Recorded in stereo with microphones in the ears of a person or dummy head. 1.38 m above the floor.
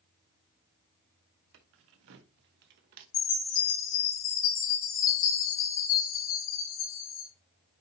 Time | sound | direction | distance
1.5 | keys jangling | 65° right (ahead or behind) | 1.0 m
3.1 | a chime | 50° left (ahead or behind) | 2.5 m